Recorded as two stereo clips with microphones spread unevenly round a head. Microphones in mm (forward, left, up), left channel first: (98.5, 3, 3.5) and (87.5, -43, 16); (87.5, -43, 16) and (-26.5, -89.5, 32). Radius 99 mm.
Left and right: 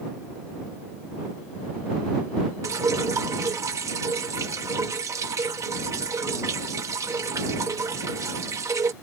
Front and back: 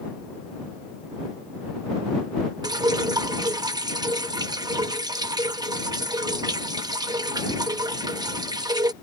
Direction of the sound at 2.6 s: 100° right.